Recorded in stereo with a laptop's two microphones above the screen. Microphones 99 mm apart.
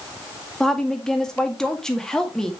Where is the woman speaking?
5° left (ahead or behind), 1.8 m.